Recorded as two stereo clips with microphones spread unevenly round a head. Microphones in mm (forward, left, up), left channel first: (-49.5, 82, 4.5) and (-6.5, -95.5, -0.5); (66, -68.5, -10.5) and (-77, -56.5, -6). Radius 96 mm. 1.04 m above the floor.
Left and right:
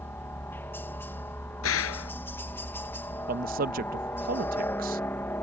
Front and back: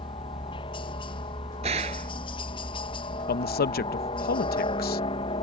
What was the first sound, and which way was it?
A helicopter, 30° left.